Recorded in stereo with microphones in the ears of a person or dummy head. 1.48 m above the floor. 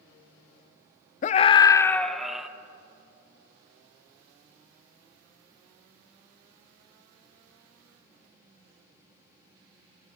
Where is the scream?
40° left (ahead or behind), 0.7 m; by 2.5 s 5° right (ahead or behind), 1.4 m.